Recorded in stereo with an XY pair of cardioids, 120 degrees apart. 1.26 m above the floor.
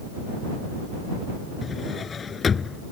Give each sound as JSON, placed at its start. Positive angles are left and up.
{"t": 1.6, "sound": "a drawer", "azimuth_deg": 35}